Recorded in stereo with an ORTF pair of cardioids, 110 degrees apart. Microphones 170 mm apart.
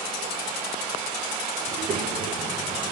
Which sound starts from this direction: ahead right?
A child speaking, at 1.7 s.